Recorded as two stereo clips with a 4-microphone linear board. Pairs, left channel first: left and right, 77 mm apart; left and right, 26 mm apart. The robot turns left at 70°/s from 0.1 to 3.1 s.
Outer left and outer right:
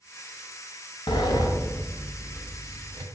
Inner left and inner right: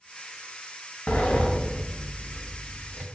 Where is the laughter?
I don't hear laughter.